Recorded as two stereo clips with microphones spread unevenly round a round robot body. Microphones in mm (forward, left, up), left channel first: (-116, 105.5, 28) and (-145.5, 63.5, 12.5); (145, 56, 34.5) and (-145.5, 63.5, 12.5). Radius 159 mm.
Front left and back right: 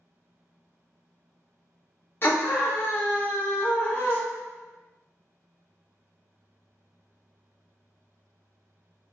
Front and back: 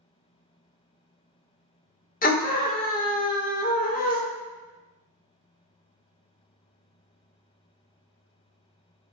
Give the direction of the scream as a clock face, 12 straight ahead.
11 o'clock.